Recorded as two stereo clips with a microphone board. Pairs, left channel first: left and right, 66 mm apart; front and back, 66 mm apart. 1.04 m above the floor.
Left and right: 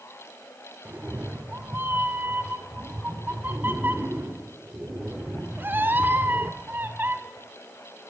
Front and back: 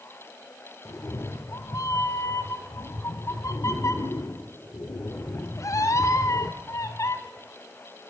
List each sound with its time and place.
0.8 s a cat meowing: 35° right, 1.3 m